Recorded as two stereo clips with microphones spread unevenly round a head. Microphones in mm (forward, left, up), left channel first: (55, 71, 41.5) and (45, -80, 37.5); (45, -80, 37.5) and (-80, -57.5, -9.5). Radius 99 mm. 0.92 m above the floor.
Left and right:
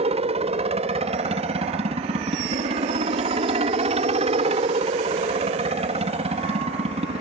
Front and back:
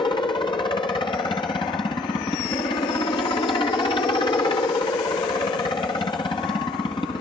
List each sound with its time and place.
0.0 s a helicopter: 70° right